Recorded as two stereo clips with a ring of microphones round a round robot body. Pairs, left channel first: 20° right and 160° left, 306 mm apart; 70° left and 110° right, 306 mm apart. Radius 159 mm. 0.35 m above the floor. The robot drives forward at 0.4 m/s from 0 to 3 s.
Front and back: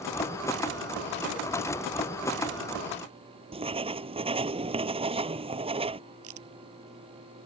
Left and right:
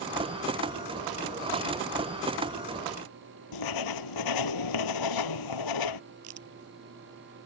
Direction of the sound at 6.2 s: 155° right.